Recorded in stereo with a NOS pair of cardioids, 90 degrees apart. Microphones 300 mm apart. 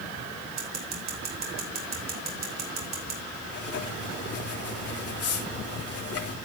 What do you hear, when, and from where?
0.6 s scissors: 60° right, 5.5 m
3.5 s writing: 55° left, 3 m